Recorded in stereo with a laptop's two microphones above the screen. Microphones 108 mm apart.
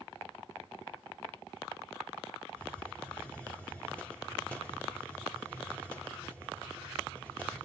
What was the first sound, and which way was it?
A hiss, 10° left (ahead or behind).